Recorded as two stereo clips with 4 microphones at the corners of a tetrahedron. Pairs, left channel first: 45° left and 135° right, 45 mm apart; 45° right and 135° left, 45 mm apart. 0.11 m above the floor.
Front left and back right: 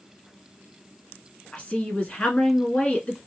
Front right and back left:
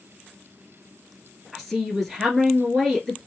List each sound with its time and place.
1.5 s a woman speaking: 40° left, 1.3 m